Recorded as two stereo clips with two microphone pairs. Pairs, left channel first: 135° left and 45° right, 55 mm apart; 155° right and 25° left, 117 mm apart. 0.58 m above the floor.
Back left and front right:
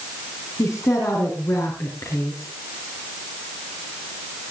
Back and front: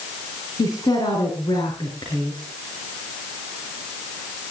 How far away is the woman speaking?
About 5 m.